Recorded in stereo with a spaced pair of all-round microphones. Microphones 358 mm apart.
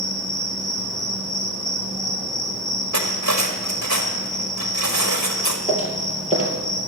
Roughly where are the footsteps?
Centre.